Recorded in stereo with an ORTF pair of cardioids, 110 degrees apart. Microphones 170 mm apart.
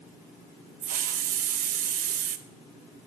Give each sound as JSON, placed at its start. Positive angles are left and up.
{"t": 0.8, "sound": "a hiss", "azimuth_deg": -55, "distance_m": 0.7}